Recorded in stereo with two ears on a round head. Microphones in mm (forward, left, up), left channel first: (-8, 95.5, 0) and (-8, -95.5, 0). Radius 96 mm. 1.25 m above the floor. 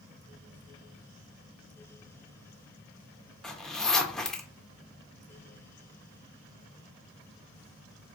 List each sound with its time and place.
3.4 s a zipper: centre (ahead or behind), 0.6 m